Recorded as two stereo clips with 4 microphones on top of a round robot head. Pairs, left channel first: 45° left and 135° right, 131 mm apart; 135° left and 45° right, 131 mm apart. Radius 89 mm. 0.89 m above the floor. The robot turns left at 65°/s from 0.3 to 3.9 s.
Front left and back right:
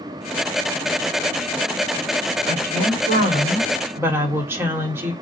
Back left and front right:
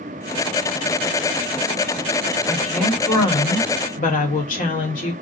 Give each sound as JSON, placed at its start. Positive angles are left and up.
{"t": 2.5, "sound": "a woman speaking", "azimuth_deg": -115, "distance_m": 1.3}